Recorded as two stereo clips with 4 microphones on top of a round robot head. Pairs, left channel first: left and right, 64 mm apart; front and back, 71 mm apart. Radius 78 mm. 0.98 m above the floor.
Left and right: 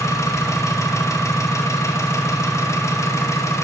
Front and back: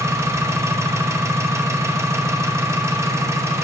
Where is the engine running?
130° left, 0.8 m.